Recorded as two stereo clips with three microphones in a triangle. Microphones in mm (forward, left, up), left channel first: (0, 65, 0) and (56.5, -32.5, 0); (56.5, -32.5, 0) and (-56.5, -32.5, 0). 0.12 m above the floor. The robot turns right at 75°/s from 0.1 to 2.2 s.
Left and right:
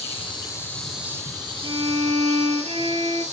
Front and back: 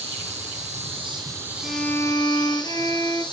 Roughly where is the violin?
Right.